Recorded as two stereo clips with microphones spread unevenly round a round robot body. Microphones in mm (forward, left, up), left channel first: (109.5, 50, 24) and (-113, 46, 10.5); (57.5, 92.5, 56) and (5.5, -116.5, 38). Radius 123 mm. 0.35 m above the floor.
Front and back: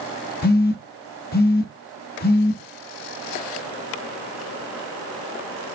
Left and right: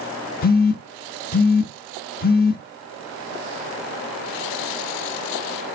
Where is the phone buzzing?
40° left, 0.6 m.